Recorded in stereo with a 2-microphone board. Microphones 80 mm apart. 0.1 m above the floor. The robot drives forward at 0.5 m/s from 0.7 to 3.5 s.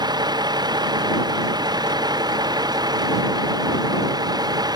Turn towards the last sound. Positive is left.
turn(degrees=-55)  # may be behind; listen again after turning